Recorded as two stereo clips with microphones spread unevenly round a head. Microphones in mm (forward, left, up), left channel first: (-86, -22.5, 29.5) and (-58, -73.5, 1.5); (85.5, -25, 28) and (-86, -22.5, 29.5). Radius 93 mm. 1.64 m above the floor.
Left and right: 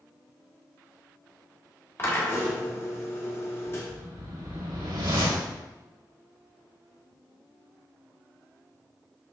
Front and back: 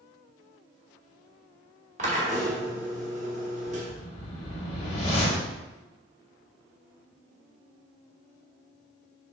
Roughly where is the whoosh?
Ahead right.